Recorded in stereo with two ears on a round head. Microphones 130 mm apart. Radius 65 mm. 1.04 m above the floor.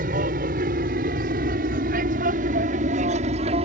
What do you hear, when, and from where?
0.0 s an aircraft: 60° right (ahead or behind); by 3.6 s 45° right (ahead or behind)